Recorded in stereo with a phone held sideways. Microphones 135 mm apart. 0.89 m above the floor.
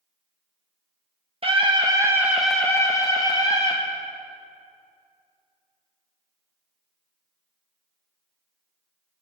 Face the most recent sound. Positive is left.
turn(degrees=45)  # may be behind; listen again after turning